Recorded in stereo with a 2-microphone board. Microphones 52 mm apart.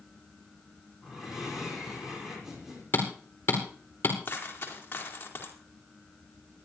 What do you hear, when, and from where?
1.0 s breathing: 10° right (ahead or behind), 5.5 m
2.9 s hammering: 40° left (ahead or behind), 4 m
4.2 s a dropped coin: 35° left (ahead or behind), 4 m